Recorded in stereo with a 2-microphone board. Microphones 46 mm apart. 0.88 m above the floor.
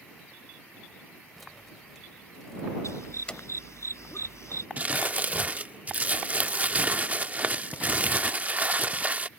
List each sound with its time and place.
1.4 s keys jangling: centre (ahead or behind); by 3.4 s 20° left (ahead or behind)
2.8 s a dog barking: 85° left
4.8 s crumpling: 35° right (ahead or behind)